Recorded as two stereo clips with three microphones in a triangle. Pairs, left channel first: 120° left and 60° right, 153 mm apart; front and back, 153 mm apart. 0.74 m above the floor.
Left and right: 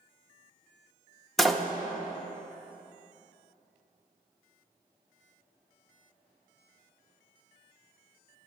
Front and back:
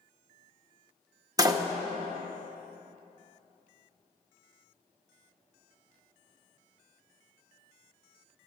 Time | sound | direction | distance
1.4 | a door slam | 155° right | 0.5 m